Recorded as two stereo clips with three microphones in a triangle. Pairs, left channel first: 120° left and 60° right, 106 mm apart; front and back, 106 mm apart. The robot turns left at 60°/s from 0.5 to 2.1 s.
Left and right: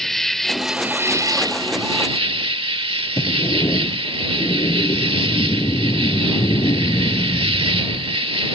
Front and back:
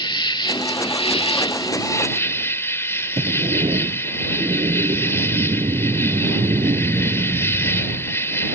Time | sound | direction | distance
0.0 | an insect | 35° left | ?
3.2 | a sliding door | 170° left | ?